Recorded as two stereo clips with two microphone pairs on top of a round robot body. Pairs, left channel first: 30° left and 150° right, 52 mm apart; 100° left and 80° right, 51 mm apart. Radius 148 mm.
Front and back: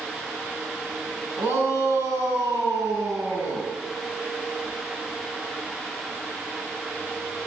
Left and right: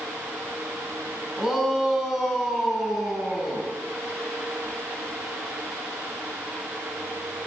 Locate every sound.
1.4 s a shout: 160° right, 8 m